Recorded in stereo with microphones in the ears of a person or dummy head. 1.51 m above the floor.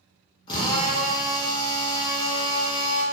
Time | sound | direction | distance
0.5 | a drill | 25° left (ahead or behind) | 0.5 m